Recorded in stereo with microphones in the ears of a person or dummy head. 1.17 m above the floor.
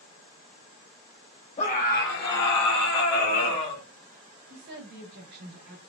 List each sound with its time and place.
1.6 s a scream: 30° left (ahead or behind), 0.9 m; by 3.8 s 55° left (ahead or behind), 1.8 m
4.5 s a woman speaking: 60° right (ahead or behind), 1.3 m